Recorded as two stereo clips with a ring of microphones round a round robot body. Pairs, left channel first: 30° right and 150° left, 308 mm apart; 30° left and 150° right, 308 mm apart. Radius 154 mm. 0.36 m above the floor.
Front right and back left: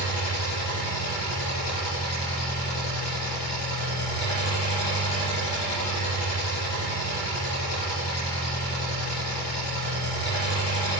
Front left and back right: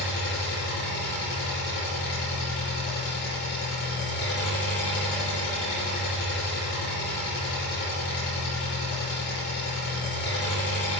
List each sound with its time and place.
0.0 s an engine running: 25° right, 4 m